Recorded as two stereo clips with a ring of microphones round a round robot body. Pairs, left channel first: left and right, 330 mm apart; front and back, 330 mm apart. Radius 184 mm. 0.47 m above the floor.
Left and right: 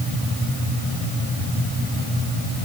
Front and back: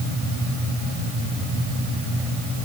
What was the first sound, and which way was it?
Only background noise.